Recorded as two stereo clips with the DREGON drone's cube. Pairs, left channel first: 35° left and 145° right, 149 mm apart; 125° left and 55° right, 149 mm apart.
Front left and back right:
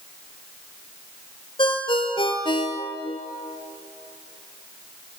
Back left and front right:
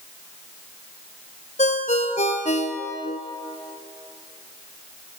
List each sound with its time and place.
1.6 s a ringtone: 90° left, 1.6 m